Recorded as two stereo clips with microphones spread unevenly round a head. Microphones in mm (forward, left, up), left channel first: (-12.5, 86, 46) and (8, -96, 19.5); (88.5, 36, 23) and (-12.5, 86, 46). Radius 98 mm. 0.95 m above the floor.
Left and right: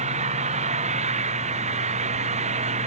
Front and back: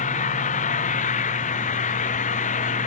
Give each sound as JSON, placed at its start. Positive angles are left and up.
{"t": 0.0, "sound": "an engine running", "azimuth_deg": -30}